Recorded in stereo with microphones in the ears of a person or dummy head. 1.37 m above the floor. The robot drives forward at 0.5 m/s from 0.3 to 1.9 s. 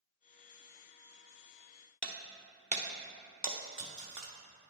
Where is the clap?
No clap in this recording.